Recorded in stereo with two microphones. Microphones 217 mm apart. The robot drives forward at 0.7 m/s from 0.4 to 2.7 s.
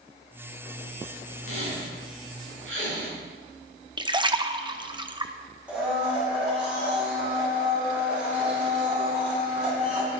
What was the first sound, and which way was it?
A squeak, 70° right (ahead or behind).